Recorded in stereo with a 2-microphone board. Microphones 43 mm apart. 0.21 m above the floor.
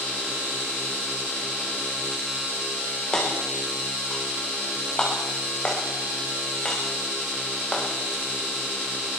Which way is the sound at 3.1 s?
15° left (ahead or behind).